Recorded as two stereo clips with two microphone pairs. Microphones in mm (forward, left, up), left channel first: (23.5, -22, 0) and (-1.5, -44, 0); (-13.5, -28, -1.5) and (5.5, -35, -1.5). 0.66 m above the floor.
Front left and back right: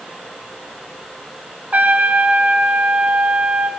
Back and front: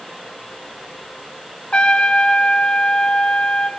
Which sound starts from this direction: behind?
A trumpet, at 1.7 s.